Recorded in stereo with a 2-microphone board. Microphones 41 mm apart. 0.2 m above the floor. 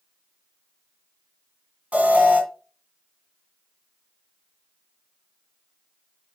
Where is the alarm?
30° right (ahead or behind), 2.5 m.